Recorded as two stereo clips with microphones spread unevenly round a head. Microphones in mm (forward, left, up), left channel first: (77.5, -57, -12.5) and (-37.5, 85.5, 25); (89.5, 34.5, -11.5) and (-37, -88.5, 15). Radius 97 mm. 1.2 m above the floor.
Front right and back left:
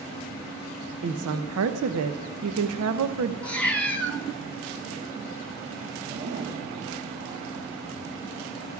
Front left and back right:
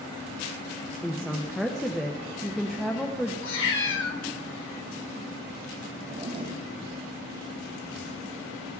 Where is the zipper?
165° left, 1.6 m.